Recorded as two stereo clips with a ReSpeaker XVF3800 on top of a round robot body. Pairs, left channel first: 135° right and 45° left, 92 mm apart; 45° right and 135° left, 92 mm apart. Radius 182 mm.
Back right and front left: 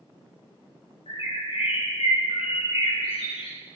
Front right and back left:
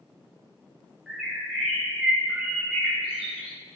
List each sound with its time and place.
1.1 s a bird: 140° right, 5 m